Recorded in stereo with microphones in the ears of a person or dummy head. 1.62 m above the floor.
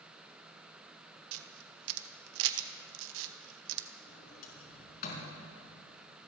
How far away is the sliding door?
About 4.5 m.